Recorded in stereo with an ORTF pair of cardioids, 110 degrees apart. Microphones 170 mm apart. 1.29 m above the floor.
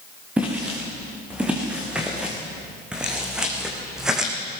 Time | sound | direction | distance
0.4 | footsteps | 10° right | 6.5 m